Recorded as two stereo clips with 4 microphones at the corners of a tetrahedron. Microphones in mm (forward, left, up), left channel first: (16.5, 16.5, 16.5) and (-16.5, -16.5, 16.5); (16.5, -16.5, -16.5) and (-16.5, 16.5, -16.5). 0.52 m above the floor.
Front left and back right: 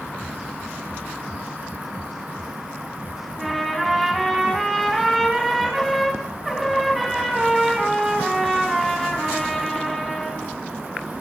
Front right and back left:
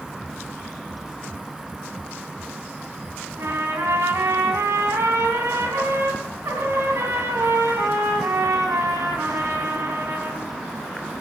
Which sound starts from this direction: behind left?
A trumpet, at 3.4 s.